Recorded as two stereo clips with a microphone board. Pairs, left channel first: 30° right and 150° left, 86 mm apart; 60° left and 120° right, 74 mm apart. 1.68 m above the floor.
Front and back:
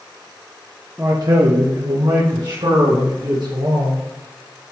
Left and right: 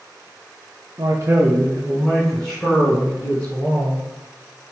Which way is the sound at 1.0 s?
145° right.